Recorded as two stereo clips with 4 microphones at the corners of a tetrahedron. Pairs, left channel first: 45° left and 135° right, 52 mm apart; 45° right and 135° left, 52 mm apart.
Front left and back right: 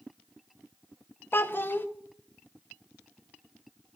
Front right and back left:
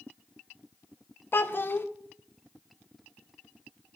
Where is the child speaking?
Straight ahead, 0.6 m.